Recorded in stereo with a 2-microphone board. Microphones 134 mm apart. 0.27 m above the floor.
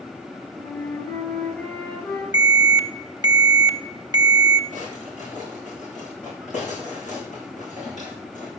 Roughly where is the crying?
I don't hear crying.